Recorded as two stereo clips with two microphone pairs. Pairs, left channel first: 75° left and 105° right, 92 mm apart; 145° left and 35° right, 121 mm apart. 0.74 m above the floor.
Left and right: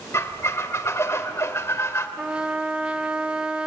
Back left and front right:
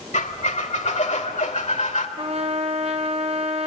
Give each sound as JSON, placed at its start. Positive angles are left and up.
{"t": 0.1, "sound": "a squeak", "azimuth_deg": 130, "distance_m": 1.4}
{"t": 2.2, "sound": "a trumpet", "azimuth_deg": -30, "distance_m": 1.1}